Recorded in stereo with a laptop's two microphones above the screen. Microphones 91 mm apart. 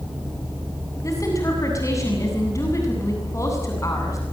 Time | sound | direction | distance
1.0 | a woman speaking | 35° left (ahead or behind) | 7.5 m